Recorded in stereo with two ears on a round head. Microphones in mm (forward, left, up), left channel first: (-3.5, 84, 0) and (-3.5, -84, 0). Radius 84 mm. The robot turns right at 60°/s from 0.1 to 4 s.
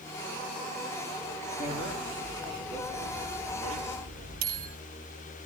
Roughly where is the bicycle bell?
Left.